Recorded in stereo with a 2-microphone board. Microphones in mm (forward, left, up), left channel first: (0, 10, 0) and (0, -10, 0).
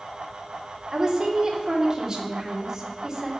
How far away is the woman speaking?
About 3 m.